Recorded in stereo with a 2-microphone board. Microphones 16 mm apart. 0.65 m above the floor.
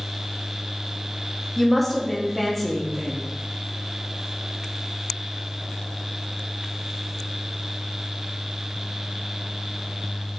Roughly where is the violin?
No violin in this recording.